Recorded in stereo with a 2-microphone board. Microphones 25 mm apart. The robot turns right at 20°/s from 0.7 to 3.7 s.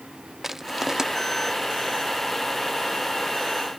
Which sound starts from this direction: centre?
Crushing, at 0.4 s.